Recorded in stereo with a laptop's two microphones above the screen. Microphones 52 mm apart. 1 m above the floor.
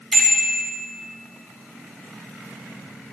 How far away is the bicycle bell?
About 4 m.